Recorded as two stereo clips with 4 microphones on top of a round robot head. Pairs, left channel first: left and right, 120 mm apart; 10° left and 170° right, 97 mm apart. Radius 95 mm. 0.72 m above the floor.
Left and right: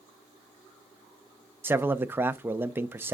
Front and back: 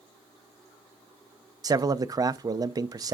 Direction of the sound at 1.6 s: 150° right.